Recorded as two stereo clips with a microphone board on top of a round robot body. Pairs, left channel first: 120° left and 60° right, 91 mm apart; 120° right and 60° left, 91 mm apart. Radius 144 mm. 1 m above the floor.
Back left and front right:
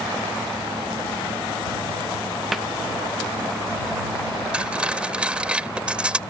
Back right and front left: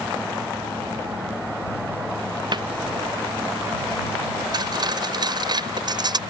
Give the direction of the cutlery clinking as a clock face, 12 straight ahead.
11 o'clock.